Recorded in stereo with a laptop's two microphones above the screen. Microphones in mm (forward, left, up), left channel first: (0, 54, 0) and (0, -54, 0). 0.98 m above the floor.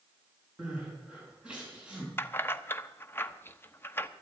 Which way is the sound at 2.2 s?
20° left (ahead or behind).